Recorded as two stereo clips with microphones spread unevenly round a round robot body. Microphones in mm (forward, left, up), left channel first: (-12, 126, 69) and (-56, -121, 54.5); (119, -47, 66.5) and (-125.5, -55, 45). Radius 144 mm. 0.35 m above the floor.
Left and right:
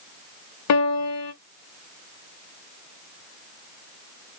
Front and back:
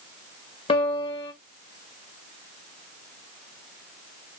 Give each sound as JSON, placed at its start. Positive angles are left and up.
{"t": 0.7, "sound": "a piano", "azimuth_deg": 75, "distance_m": 0.8}